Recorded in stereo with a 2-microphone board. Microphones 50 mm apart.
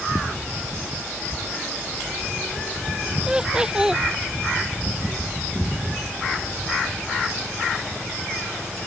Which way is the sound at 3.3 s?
15° right (ahead or behind).